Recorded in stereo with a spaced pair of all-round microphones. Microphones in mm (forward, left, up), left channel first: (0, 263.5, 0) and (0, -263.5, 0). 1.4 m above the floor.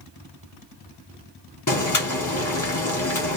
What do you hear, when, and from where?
1.7 s boiling: 35° left (ahead or behind), 1.1 m